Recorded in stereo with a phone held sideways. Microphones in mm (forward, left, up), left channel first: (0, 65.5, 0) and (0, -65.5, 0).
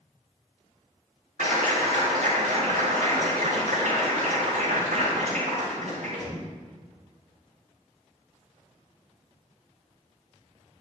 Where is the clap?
75° right (ahead or behind), 4 m.